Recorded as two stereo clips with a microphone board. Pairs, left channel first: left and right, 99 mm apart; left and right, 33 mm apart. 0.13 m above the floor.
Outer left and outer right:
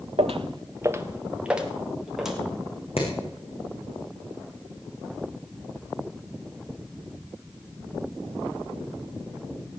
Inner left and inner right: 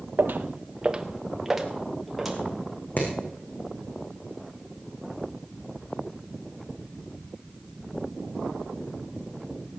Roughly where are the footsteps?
Right.